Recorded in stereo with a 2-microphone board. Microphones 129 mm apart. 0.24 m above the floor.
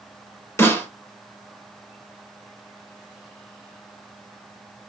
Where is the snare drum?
20° left (ahead or behind), 2 m.